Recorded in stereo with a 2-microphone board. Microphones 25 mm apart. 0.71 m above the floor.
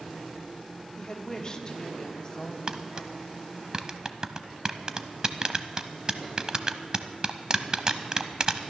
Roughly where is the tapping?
Right.